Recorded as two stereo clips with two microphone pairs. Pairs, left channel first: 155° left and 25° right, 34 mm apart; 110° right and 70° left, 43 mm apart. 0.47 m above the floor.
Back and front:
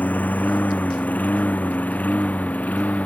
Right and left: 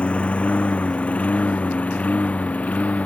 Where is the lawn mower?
170° right; by 3.0 s 165° right.